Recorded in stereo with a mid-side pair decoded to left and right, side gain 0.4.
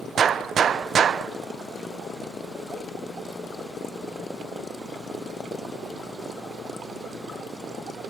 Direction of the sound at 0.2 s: 55° right.